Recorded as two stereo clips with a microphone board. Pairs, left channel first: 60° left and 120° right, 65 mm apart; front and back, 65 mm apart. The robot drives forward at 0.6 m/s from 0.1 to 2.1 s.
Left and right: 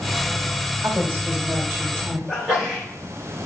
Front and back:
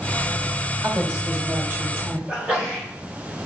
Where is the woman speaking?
160° right, 1.4 m; by 2.2 s 170° right, 1.9 m.